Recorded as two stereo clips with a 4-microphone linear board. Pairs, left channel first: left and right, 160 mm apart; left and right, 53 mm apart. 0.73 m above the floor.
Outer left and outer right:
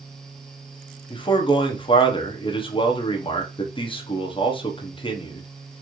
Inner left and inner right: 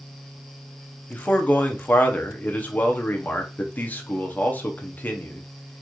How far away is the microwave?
No microwave in this recording.